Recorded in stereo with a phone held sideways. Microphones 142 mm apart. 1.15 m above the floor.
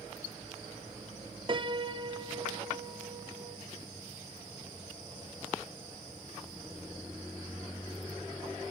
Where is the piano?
35° right (ahead or behind), 0.8 m.